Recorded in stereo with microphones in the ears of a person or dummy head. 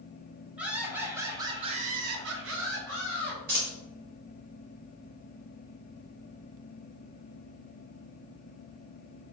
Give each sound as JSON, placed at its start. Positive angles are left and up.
{"t": 0.6, "sound": "laughter", "side_deg": -5, "distance_m": 1.8}
{"t": 3.5, "sound": "a dropped coin", "side_deg": -40, "distance_m": 1.4}